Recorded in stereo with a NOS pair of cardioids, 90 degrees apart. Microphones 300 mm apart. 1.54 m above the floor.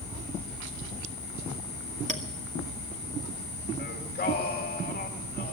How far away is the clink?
About 2 m.